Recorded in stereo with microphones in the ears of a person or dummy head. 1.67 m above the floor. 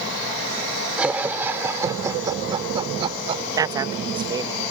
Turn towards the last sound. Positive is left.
turn(degrees=-20)  # may be behind; listen again after turning